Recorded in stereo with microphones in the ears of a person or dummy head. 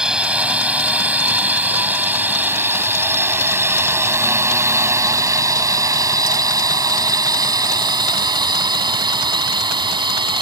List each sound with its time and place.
0.0 s a drone: 5° right (ahead or behind); by 10.4 s 25° right (ahead or behind)